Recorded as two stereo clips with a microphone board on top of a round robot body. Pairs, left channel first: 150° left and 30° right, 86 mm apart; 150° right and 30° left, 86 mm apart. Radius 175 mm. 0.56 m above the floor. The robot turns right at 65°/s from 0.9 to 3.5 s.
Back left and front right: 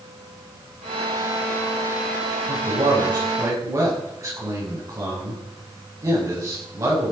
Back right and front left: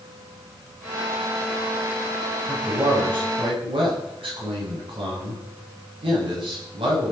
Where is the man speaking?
45° right, 9.5 m; by 7.1 s 25° left, 9.5 m.